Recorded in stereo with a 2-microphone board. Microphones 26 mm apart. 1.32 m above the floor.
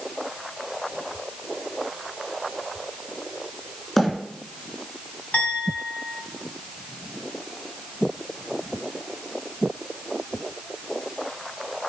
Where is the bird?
10° left (ahead or behind), 3 m.